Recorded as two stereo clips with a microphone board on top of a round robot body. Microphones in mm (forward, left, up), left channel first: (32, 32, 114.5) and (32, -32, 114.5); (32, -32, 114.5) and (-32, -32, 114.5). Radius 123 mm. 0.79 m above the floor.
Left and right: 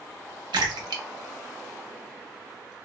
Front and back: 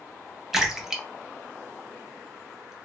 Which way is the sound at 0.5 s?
100° right.